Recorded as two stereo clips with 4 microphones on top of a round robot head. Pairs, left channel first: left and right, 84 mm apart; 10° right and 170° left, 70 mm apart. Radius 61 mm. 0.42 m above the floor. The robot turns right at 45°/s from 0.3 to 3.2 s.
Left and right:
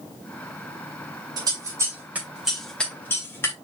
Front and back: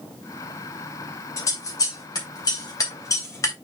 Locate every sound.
1.4 s scissors: 55° right, 2.5 m; by 3.5 s 30° left, 2.5 m